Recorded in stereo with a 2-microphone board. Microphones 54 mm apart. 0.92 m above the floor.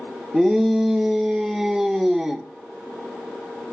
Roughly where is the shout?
Centre.